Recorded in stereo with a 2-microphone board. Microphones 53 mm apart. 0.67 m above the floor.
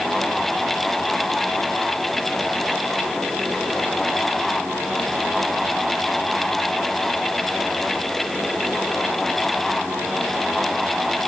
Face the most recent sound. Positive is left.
No sound to turn to.